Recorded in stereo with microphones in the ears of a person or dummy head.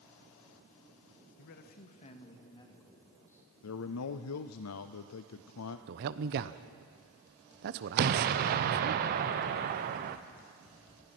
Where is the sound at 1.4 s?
60° left (ahead or behind), 1.5 m; by 3.4 s 15° left (ahead or behind), 3.5 m.